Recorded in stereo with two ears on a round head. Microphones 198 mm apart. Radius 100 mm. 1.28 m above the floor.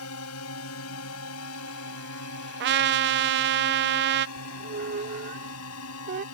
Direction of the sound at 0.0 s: 80° left.